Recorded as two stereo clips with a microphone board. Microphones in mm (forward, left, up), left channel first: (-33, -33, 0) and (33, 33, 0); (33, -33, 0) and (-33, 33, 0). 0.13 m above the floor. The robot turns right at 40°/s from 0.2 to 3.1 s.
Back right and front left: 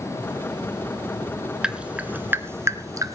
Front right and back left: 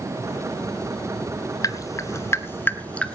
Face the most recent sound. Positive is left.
turn(degrees=25)